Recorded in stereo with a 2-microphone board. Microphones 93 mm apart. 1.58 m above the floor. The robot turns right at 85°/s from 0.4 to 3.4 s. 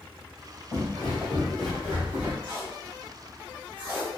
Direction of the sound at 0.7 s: 25° left (ahead or behind).